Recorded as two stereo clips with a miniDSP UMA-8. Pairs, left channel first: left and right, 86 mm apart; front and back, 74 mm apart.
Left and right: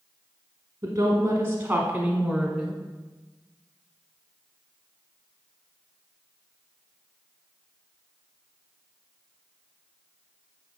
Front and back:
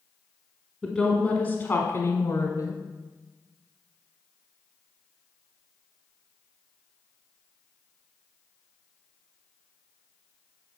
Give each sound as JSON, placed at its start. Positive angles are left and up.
{"t": 0.8, "sound": "a woman speaking", "azimuth_deg": -85, "distance_m": 1.3}